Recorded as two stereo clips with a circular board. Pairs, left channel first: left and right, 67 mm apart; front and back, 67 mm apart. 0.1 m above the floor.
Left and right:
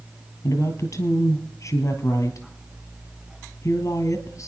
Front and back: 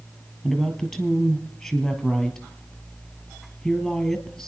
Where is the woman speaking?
75° left, 1.8 m.